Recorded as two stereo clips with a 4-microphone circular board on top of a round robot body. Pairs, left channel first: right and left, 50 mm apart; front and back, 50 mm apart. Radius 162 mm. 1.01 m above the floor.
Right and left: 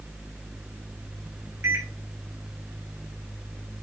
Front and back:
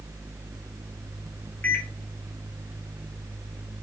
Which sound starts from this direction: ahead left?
A microwave, at 1.6 s.